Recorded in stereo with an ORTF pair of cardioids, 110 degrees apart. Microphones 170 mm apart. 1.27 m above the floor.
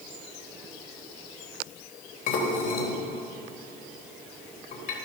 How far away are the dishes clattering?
About 3.5 m.